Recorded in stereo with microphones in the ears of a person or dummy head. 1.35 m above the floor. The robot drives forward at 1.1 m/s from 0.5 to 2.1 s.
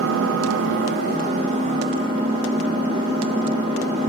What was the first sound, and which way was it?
An engine running, 85° right.